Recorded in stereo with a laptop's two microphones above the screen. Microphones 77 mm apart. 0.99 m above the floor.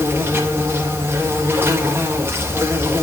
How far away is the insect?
About 1.5 m.